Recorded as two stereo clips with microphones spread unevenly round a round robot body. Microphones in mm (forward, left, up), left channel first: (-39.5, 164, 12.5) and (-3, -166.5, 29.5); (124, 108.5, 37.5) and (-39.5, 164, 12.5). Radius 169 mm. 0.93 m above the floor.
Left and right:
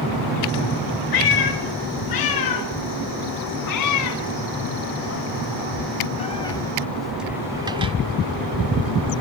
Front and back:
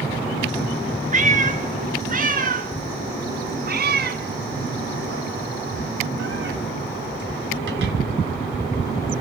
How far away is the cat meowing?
About 3.5 m.